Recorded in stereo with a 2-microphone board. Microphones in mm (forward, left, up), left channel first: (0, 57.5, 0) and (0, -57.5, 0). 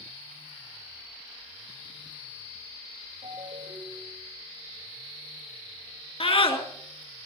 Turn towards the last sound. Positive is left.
turn(degrees=55)  # may be behind; listen again after turning